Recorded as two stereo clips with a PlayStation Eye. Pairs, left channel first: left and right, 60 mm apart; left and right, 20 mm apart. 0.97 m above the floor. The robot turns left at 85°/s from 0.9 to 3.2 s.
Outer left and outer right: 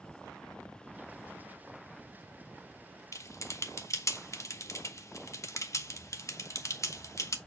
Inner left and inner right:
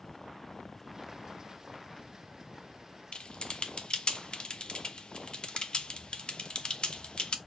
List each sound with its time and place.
3.1 s typing on a keyboard: 60° left (ahead or behind), 1.0 m